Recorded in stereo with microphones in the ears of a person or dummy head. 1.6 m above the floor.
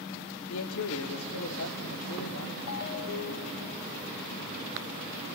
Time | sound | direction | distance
0.5 | a man speaking | 70° left (ahead or behind) | 0.9 m
2.7 | a ringtone | 60° left (ahead or behind) | 1.1 m